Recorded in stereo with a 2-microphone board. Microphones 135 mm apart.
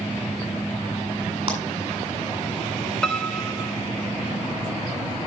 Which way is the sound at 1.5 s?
45° right (ahead or behind).